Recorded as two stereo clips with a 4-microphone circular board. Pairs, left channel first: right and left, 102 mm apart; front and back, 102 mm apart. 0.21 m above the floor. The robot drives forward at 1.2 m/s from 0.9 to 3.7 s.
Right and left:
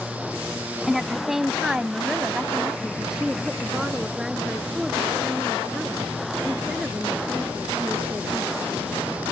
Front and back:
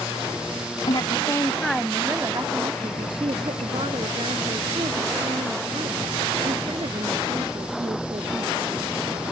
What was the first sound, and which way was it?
A woman speaking, 5° left.